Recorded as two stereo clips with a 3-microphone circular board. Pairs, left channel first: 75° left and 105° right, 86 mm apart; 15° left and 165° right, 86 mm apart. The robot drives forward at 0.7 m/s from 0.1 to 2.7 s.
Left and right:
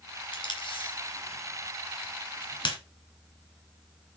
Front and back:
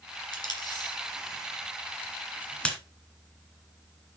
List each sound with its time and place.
0.3 s tape being pulled: 50° left, 2.5 m; by 2.8 s 95° left, 2 m